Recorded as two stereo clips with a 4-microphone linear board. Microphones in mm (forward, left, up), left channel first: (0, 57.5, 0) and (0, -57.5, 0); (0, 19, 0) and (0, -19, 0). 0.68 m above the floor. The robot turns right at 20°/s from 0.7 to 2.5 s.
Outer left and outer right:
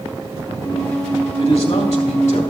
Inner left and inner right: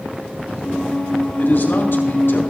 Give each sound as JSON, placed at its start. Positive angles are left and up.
{"t": 1.4, "sound": "a man speaking", "side_deg": 45, "distance_m": 2.5}